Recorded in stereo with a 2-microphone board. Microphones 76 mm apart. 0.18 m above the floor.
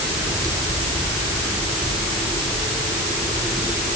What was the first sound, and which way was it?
Only background noise.